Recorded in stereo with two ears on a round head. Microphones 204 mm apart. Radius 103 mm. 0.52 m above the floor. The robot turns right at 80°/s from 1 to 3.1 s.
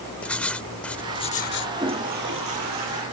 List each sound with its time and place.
0.2 s writing: 5° left; by 1.7 s 60° left
1.8 s a toilet flushing: 165° right; by 3.0 s 65° right